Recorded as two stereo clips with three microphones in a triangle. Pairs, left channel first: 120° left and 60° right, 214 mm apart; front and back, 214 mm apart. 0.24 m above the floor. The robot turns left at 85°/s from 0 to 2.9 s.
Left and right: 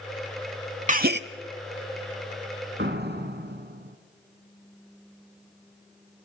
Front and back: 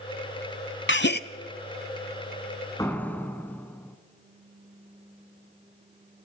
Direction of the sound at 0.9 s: 10° right.